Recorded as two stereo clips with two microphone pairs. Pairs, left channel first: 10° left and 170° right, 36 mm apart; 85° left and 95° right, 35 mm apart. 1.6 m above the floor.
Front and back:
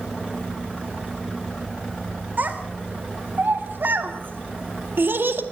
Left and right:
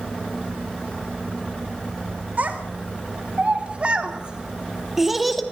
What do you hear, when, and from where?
2.4 s a child speaking: 135° right, 3.5 m; by 5.4 s 170° left, 1.9 m